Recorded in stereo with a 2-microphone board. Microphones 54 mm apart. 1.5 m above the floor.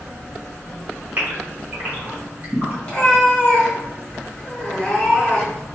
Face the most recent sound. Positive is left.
turn(degrees=20)  # may be behind; listen again after turning